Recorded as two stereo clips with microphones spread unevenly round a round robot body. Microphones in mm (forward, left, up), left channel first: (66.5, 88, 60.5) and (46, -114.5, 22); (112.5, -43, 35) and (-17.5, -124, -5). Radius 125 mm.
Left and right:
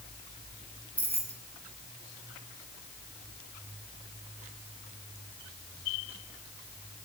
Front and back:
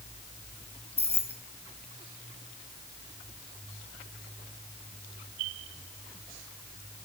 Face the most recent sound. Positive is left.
turn(degrees=-15)